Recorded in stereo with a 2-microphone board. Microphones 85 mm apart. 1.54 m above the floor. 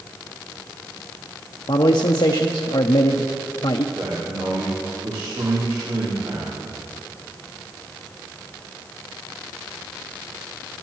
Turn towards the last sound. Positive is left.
turn(degrees=-85)